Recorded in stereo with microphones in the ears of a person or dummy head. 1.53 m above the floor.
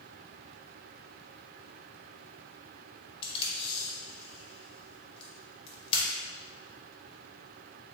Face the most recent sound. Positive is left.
turn(degrees=30)  # may be behind; listen again after turning